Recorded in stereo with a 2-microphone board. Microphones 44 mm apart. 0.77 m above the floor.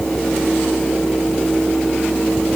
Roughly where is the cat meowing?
I don't hear a cat meowing.